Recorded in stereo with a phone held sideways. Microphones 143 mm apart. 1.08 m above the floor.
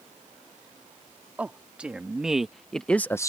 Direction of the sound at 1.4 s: 10° right (ahead or behind).